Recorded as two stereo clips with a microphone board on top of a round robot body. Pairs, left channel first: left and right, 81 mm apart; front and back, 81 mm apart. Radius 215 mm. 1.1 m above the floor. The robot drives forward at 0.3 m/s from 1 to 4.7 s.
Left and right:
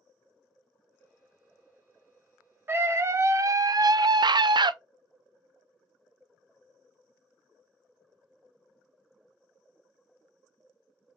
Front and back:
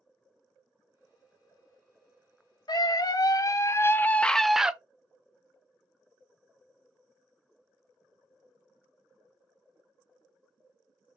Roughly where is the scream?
Ahead right.